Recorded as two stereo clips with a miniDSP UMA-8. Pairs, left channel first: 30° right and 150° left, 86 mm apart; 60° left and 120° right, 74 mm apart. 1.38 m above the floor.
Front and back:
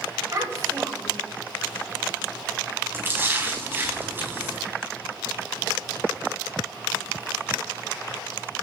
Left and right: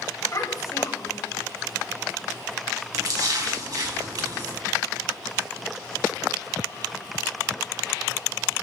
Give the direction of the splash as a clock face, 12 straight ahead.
5 o'clock.